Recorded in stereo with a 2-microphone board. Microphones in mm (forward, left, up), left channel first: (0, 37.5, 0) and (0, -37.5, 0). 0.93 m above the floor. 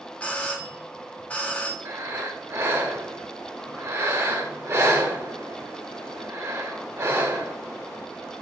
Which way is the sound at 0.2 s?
15° left (ahead or behind).